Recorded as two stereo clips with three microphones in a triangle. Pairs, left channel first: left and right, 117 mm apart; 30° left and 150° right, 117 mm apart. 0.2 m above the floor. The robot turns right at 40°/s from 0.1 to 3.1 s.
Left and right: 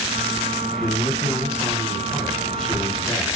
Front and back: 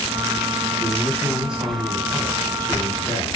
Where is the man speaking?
100° left, 1.1 m; by 3.3 s 165° right, 1.1 m.